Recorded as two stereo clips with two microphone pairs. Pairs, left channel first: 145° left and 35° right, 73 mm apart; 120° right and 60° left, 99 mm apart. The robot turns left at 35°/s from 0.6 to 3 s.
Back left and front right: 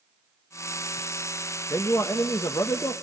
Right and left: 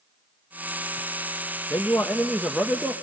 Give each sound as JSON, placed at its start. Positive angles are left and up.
{"t": 1.7, "sound": "a man speaking", "azimuth_deg": 180, "distance_m": 0.9}